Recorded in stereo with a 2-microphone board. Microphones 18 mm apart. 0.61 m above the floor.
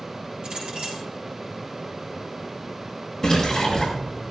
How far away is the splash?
About 5.5 m.